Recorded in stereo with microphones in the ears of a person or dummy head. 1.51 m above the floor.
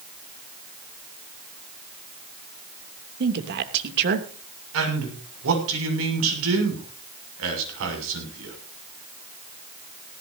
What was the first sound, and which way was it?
A woman speaking, 60° right (ahead or behind).